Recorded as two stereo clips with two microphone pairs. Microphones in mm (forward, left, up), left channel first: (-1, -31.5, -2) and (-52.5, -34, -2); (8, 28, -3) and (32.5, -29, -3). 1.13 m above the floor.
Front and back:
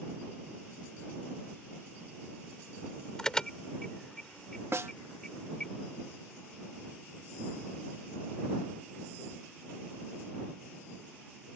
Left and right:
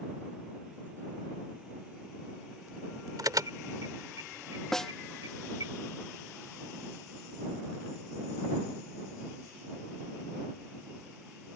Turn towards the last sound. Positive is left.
turn(degrees=-165)